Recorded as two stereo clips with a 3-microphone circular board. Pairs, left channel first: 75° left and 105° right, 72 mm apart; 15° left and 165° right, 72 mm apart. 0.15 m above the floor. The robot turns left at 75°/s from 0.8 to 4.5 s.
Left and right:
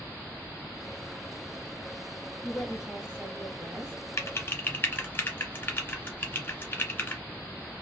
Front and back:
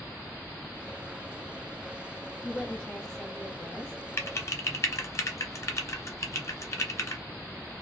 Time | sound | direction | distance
2.4 | a woman speaking | 15° right | 1.2 m
4.2 | typing on a keyboard | 50° left | 0.9 m